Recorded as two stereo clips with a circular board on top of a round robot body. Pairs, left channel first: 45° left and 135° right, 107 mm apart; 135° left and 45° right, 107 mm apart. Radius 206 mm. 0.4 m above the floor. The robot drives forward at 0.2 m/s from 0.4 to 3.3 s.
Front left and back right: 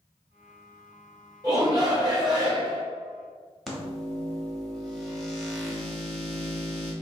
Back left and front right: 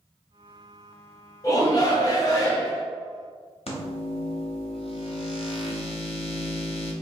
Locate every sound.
1.4 s a shout: straight behind, 1.7 m
3.7 s a microwave: 135° left, 1.2 m